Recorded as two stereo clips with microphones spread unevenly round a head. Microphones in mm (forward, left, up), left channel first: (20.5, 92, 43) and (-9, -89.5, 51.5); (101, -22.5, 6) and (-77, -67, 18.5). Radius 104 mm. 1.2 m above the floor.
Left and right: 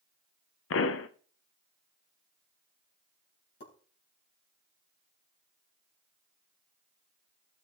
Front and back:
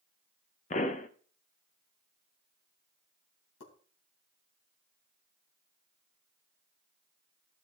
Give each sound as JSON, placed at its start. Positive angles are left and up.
{"t": 0.7, "sound": "a pop", "azimuth_deg": 70, "distance_m": 0.7}
{"t": 3.6, "sound": "a pop", "azimuth_deg": 45, "distance_m": 3.5}